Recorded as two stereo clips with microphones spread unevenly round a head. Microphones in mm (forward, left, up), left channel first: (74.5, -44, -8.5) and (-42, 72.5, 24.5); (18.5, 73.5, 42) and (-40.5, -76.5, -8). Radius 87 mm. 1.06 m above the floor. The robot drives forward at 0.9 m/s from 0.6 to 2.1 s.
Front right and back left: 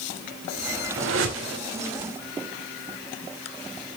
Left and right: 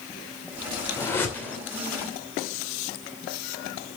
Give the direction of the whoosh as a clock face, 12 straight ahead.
7 o'clock.